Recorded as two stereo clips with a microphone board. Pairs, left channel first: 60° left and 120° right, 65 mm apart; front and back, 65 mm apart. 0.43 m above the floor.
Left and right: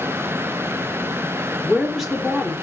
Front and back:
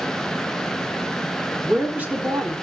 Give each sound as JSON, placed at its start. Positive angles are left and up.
{"t": 1.6, "sound": "a woman speaking", "azimuth_deg": 155, "distance_m": 1.3}